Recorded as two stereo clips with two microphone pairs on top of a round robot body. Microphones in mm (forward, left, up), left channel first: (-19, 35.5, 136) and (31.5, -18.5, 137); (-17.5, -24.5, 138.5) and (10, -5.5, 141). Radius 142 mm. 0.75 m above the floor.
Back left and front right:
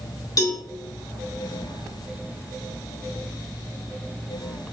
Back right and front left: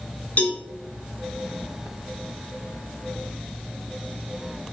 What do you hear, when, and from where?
0.4 s a cowbell: 175° left, 3.5 m